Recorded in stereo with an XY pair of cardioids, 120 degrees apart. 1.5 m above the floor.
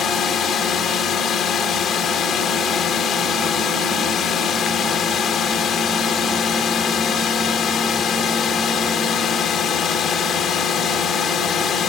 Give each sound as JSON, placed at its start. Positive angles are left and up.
{"t": 0.0, "sound": "a drone", "azimuth_deg": 55}